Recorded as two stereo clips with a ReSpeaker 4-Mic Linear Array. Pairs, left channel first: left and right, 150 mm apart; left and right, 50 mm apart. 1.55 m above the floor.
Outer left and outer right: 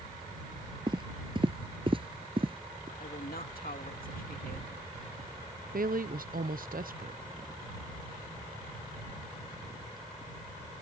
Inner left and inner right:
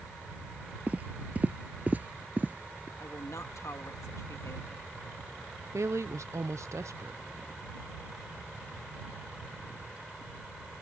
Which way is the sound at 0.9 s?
30° right (ahead or behind).